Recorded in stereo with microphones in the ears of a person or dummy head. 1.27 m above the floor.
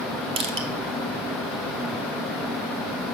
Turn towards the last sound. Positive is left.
turn(degrees=-40)  # may be behind; listen again after turning